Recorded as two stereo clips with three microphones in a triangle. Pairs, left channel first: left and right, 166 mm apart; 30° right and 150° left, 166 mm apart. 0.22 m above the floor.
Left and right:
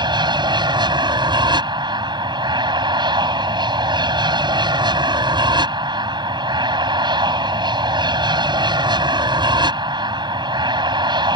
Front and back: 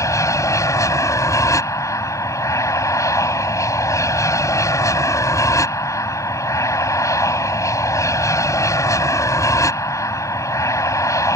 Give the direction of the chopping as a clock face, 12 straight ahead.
I don't hear chopping.